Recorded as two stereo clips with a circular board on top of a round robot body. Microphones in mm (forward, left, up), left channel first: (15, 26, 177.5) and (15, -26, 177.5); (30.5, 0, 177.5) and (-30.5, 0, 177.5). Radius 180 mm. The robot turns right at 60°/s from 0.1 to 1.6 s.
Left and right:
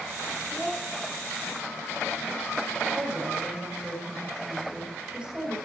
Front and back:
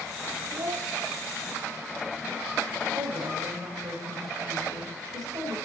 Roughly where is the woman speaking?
Behind.